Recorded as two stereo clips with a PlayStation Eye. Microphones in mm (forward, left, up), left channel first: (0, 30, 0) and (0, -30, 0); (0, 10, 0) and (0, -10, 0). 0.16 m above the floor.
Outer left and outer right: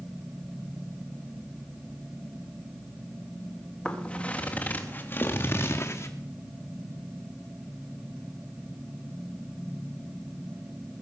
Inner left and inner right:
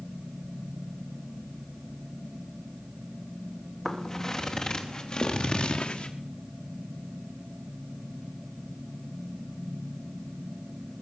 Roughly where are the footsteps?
Centre.